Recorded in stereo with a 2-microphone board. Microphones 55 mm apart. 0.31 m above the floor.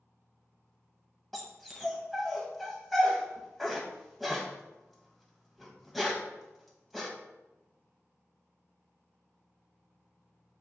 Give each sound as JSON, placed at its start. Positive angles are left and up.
{"t": 1.3, "sound": "a dog barking", "side_deg": 0, "distance_m": 0.7}